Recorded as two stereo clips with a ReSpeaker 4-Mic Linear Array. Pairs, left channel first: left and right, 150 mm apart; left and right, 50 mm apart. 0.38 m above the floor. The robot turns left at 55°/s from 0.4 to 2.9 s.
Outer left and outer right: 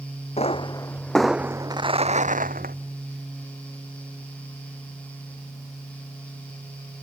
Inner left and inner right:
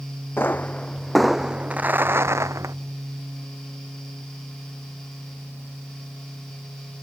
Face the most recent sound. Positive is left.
turn(degrees=-95)